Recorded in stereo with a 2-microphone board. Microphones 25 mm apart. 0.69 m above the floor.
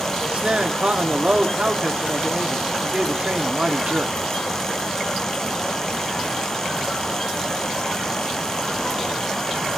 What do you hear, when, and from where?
0.2 s a man speaking: 55° right (ahead or behind), 1.4 m